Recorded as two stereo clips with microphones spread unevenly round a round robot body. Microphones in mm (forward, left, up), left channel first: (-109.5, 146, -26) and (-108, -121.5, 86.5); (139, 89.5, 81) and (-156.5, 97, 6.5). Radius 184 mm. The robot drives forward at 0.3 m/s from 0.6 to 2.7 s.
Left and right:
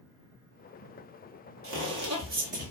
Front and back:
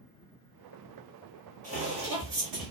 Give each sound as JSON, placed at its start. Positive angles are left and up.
{"t": 1.6, "sound": "footsteps", "azimuth_deg": -105, "distance_m": 1.0}